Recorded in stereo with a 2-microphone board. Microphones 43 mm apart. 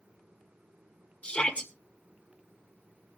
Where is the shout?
40° left (ahead or behind), 1.7 m.